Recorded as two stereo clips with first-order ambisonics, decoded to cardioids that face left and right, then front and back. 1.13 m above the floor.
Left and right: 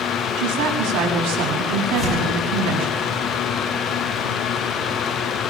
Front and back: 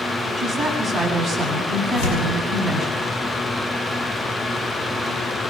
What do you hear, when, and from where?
0.4 s a woman speaking: 80° right, 7 m
1.9 s tearing paper: 20° right, 10 m